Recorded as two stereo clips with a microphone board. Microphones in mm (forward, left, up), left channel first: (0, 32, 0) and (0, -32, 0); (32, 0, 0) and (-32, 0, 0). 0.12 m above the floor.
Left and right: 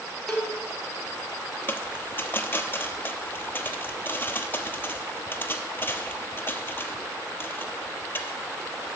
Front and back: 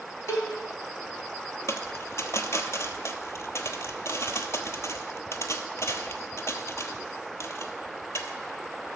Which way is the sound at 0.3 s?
10° left.